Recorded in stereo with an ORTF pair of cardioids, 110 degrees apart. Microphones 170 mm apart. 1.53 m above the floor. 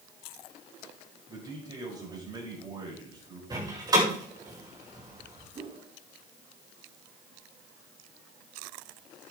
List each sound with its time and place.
1.3 s a man speaking: 25° right, 7 m
3.5 s a door slam: 25° right, 5.5 m
5.5 s a whoosh: 35° right, 3 m